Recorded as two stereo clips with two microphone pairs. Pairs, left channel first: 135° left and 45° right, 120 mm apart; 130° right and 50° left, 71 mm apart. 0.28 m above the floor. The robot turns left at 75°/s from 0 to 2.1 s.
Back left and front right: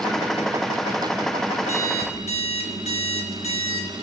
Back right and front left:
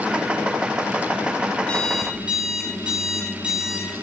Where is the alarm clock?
155° left, 1.2 m; by 3.9 s 125° left, 1.2 m.